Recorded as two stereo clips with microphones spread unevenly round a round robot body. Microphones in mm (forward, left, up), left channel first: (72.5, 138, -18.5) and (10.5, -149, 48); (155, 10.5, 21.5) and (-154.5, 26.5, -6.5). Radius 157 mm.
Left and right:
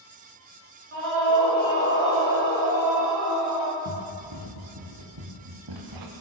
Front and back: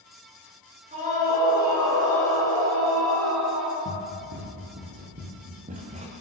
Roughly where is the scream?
Behind right.